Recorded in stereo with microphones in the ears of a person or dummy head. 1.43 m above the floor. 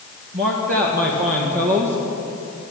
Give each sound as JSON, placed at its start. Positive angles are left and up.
{"t": 0.3, "sound": "a man speaking", "side_deg": -45, "distance_m": 1.7}